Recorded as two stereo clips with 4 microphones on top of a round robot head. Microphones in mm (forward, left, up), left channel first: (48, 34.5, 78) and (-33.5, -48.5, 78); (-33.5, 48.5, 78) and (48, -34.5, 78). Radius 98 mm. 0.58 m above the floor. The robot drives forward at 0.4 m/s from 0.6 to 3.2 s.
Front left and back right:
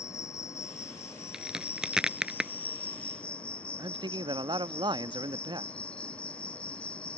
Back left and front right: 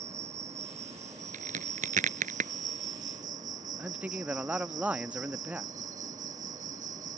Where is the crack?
50° right.